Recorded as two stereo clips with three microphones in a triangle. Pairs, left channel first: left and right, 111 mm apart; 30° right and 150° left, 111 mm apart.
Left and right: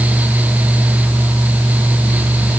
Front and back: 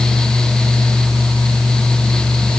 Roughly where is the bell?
No bell in this recording.